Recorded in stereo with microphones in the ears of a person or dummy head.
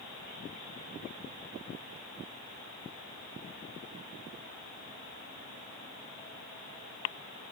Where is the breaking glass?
No breaking glass in this recording.